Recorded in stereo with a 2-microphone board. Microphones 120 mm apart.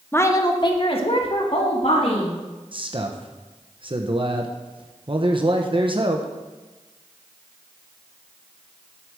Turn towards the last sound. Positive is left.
turn(degrees=-45)  # may be behind; listen again after turning